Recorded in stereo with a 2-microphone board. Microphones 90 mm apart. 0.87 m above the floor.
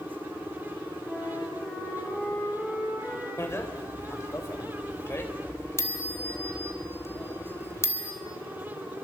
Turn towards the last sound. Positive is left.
turn(degrees=30)  # may be behind; listen again after turning